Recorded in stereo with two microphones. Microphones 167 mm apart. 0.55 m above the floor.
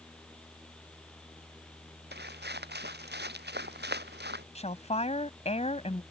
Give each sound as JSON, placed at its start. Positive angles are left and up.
{"t": 2.1, "sound": "footsteps", "side_deg": -80}
{"t": 4.5, "sound": "a woman speaking", "side_deg": 40}